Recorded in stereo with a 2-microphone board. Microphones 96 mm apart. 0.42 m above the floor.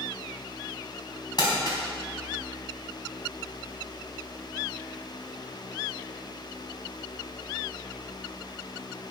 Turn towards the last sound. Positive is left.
turn(degrees=50)  # may be behind; listen again after turning